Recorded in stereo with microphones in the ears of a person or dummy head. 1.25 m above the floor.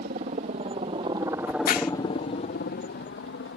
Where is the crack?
55° left (ahead or behind).